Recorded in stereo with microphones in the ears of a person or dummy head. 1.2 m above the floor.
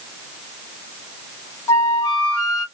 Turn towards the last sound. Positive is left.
turn(degrees=20)  # may be behind; listen again after turning